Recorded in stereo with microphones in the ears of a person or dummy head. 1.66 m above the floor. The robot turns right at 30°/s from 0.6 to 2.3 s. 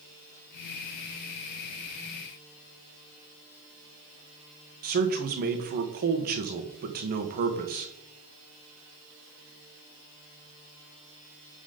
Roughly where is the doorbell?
I don't hear a doorbell.